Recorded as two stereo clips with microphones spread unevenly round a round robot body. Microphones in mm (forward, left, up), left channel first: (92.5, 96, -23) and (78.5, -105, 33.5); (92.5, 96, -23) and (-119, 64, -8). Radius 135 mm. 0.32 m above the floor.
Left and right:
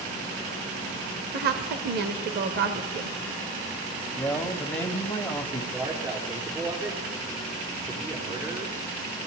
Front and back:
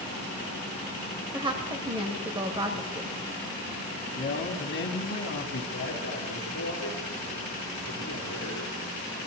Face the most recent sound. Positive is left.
turn(degrees=-25)